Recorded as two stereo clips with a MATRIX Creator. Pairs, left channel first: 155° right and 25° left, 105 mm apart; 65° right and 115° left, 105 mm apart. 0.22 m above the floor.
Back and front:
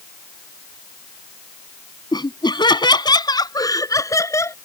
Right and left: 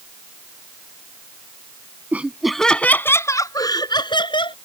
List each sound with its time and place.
2.1 s laughter: straight behind; by 4.5 s 95° right